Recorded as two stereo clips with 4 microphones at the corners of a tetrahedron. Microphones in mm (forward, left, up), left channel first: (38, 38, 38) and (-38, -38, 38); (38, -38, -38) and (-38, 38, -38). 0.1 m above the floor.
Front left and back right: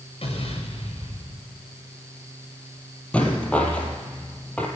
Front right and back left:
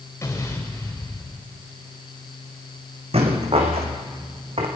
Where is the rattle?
125° left, 3 m.